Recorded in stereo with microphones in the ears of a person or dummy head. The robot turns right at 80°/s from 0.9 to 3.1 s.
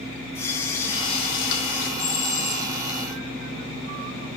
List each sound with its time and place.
0.3 s a running tap: 25° left, 1.4 m; by 1.9 s 105° left, 1.4 m
2.0 s a bell: 90° left, 3 m; by 2.7 s 145° left, 3 m